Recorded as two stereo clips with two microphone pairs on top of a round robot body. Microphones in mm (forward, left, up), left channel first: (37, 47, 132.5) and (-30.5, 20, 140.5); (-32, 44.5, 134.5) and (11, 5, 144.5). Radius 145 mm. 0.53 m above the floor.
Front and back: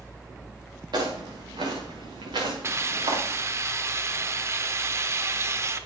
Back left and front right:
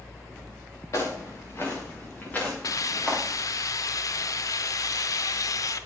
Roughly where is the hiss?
Behind left.